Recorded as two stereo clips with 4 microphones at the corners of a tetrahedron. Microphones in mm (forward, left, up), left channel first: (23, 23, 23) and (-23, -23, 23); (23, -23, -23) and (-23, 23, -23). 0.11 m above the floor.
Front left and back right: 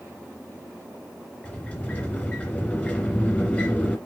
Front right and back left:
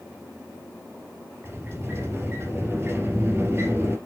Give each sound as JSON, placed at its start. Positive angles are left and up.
{"t": 1.4, "sound": "a sliding door", "azimuth_deg": 100, "distance_m": 2.0}